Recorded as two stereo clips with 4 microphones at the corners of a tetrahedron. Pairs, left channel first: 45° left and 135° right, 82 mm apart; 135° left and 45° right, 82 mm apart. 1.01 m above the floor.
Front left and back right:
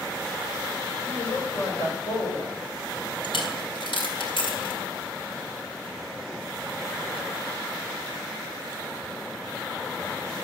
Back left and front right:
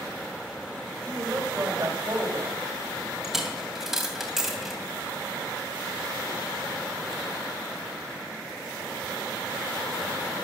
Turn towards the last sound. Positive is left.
turn(degrees=40)